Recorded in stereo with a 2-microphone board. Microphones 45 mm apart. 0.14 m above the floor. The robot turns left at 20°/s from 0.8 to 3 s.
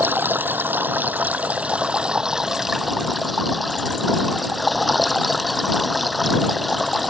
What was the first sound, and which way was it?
Running water, 135° right.